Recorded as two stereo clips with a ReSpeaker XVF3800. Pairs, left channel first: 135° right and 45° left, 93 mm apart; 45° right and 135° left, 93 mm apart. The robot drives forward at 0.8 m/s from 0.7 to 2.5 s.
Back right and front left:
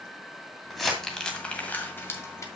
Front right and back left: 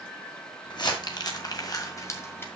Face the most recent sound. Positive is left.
turn(degrees=-100)